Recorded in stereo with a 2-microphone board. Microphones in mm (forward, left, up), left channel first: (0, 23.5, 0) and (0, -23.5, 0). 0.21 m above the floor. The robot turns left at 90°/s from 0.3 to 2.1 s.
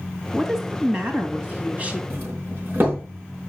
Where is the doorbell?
50° right (ahead or behind), 4.5 m.